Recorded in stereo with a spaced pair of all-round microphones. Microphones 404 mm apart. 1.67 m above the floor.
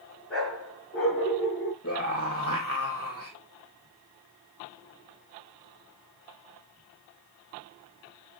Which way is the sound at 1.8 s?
35° left (ahead or behind).